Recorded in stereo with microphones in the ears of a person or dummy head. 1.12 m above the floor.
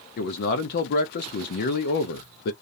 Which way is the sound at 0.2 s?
60° left (ahead or behind).